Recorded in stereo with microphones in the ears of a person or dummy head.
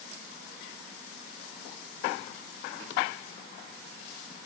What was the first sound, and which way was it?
Only background noise.